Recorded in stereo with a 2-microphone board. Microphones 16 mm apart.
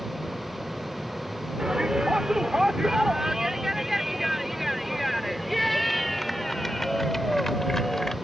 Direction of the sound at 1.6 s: 55° right (ahead or behind).